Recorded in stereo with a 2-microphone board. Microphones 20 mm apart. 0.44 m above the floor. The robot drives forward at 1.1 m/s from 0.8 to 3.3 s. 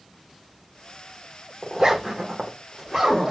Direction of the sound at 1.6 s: 25° right (ahead or behind).